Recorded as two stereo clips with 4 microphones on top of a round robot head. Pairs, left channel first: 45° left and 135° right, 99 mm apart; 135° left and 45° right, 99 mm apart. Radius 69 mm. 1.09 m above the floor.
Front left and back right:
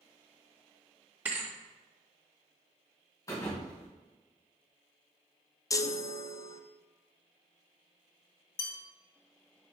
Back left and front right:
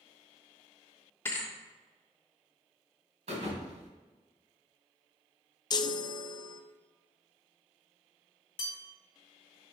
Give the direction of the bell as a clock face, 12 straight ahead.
9 o'clock.